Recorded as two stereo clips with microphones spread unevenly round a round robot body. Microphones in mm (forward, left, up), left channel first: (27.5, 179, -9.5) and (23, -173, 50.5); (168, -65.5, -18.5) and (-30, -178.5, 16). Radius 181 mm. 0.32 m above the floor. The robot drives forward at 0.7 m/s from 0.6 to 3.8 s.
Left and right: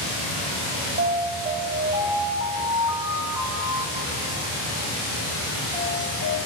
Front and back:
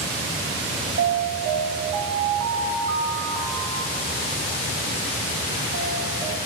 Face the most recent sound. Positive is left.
turn(degrees=-175)